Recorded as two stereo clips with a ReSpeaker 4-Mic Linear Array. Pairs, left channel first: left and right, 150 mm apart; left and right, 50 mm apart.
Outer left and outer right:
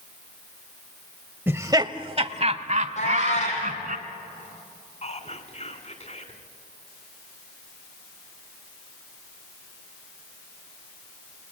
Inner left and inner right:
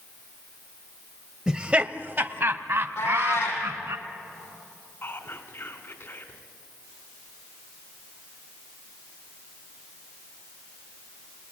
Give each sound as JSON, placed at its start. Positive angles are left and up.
{"t": 1.5, "sound": "laughter", "side_deg": -15, "distance_m": 0.9}
{"t": 3.0, "sound": "a cat meowing", "side_deg": 50, "distance_m": 6.5}
{"t": 5.0, "sound": "whispering", "side_deg": 50, "distance_m": 2.5}